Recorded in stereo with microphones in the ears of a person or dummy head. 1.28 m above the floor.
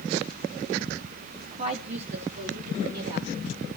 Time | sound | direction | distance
1.3 | a woman speaking | 30° right (ahead or behind) | 1.0 m